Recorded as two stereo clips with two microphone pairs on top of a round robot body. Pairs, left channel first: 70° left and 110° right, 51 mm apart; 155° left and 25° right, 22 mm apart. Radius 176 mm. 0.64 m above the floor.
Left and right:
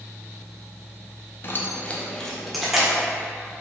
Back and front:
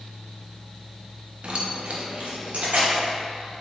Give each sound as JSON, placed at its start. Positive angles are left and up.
{"t": 1.4, "sound": "keys jangling", "azimuth_deg": 20, "distance_m": 0.7}